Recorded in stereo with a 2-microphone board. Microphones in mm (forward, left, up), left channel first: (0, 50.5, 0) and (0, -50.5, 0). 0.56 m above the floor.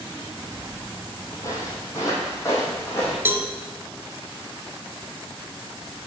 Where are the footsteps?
40° left (ahead or behind), 0.8 m; by 3.1 s 25° left (ahead or behind), 2 m.